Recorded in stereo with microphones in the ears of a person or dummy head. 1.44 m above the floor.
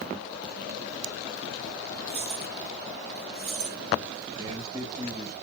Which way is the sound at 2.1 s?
45° right (ahead or behind).